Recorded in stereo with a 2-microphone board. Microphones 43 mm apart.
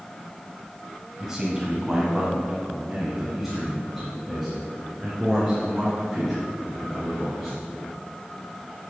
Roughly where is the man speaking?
Centre.